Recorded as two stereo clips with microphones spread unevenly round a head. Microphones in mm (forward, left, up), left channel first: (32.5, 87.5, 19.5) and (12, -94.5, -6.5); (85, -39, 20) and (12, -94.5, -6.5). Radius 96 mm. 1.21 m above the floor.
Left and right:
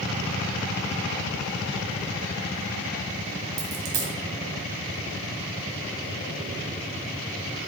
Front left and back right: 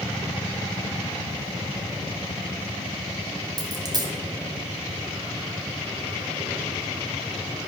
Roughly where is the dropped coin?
Right.